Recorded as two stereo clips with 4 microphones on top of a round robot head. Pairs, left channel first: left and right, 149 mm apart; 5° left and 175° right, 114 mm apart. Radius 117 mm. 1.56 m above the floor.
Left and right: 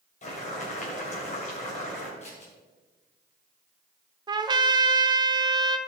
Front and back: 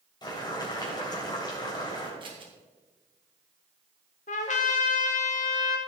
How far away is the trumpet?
About 0.7 m.